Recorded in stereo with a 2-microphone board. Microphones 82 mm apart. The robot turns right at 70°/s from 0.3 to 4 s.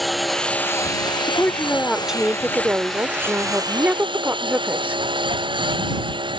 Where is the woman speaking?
135° left; by 5.0 s 35° right.